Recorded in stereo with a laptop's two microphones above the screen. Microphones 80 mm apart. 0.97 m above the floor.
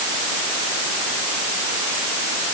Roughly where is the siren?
I don't hear a siren.